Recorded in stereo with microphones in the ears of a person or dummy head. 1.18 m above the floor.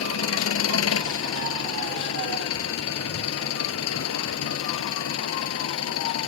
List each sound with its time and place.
0.0 s an engine running: 85° left